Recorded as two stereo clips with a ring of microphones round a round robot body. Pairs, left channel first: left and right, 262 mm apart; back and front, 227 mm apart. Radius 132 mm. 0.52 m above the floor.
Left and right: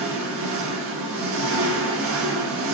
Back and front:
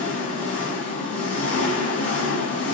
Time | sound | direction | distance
0.0 | an engine running | 95° right | 0.8 m